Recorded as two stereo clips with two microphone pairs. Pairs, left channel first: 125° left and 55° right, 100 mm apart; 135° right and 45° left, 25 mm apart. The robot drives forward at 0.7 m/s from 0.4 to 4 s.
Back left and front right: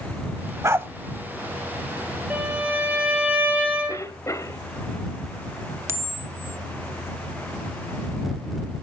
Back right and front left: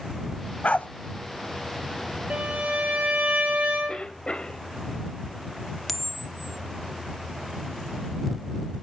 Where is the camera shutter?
55° right, 0.9 m.